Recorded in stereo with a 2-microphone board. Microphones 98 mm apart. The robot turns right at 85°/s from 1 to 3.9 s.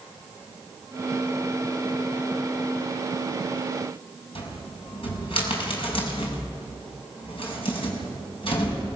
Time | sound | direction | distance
4.3 | a cupboard door | 70° left (ahead or behind) | 5.5 m